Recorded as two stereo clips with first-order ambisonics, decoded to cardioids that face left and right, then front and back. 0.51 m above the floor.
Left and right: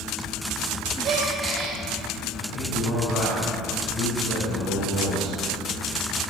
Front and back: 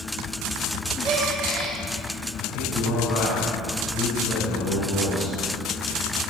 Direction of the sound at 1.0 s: 130° right.